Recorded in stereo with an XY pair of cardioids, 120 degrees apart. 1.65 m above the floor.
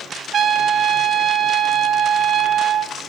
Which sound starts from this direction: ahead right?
A trumpet, at 0.3 s.